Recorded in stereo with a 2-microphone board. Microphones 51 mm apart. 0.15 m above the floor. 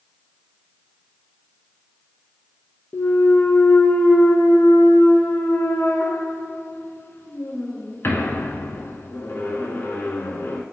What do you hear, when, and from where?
2.9 s a clunk: 50° left (ahead or behind), 0.5 m